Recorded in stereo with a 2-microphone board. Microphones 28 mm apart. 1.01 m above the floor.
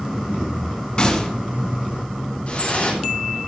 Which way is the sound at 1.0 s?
35° left (ahead or behind).